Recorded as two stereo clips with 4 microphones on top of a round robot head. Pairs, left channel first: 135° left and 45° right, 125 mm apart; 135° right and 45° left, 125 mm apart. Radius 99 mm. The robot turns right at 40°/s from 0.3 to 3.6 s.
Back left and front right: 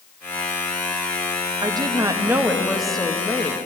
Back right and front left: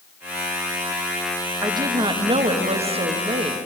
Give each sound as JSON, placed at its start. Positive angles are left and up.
{"t": 1.6, "sound": "a woman speaking", "azimuth_deg": -10, "distance_m": 0.7}